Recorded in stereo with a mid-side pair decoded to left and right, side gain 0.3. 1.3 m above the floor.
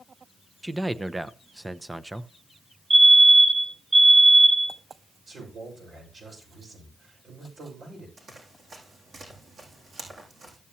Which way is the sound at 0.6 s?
20° right.